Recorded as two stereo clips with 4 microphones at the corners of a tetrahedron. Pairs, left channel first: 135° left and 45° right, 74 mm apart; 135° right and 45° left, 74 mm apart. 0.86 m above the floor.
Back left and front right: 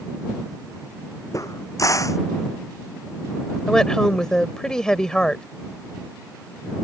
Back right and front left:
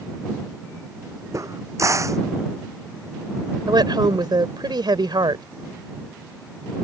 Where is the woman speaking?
55° left.